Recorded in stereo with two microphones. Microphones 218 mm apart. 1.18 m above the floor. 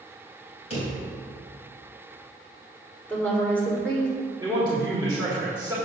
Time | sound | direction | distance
0.7 | a drawer | 30° left (ahead or behind) | 3 m
3.1 | a woman speaking | 5° left (ahead or behind) | 3 m
4.4 | a man speaking | 15° right (ahead or behind) | 2.5 m